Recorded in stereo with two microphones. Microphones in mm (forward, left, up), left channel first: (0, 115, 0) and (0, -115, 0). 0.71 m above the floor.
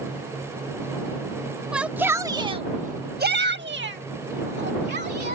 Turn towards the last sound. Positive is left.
turn(degrees=-45)  # may be behind; listen again after turning